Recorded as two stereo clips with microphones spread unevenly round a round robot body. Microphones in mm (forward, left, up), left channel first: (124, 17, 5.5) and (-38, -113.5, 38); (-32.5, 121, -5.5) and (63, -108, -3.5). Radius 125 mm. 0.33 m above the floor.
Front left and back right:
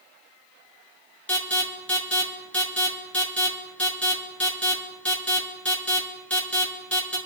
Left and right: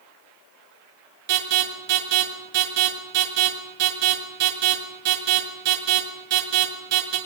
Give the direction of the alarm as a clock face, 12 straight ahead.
1 o'clock.